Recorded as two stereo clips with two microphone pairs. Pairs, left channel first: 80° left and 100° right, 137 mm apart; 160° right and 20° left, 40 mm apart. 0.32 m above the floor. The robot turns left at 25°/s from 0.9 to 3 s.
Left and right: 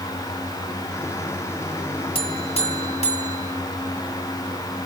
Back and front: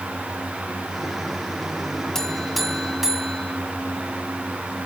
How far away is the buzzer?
About 1.5 m.